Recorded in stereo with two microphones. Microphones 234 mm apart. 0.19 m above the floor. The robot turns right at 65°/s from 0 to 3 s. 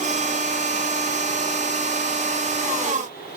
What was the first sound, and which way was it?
Only background noise.